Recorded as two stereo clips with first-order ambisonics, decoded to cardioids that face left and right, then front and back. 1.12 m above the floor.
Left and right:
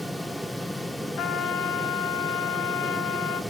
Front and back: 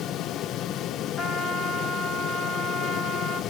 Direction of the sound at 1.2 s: 65° left.